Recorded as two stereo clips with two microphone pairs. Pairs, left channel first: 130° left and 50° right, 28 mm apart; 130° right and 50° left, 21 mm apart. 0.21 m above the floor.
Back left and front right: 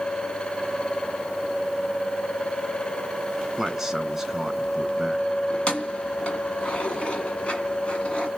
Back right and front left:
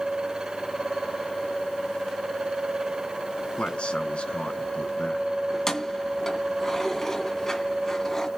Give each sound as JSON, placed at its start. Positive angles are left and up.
{"t": 3.6, "sound": "a man speaking", "azimuth_deg": -130, "distance_m": 2.5}
{"t": 5.5, "sound": "keys jangling", "azimuth_deg": 165, "distance_m": 1.5}